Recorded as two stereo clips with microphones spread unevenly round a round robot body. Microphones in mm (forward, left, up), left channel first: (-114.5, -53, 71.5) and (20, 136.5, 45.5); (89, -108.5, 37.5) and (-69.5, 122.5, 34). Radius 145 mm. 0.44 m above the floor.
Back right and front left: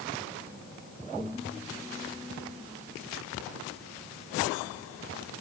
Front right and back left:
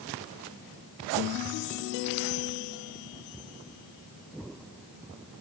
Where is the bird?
No bird in this recording.